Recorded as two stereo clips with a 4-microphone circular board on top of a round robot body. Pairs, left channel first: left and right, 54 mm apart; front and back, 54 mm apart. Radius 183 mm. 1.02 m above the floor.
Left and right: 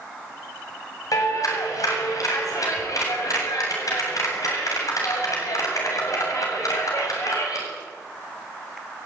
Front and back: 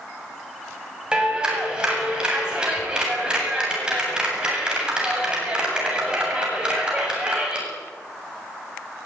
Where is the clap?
105° left, 8 m.